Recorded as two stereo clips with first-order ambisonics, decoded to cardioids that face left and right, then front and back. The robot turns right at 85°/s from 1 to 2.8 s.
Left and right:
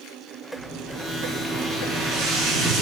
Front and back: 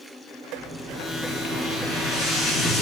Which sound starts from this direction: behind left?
An explosion, at 0.6 s.